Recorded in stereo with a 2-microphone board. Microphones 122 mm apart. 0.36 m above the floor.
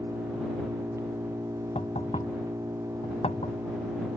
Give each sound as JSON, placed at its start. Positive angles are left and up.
{"t": 0.0, "sound": "an engine running", "side_deg": -25}
{"t": 1.8, "sound": "knocking", "side_deg": 65}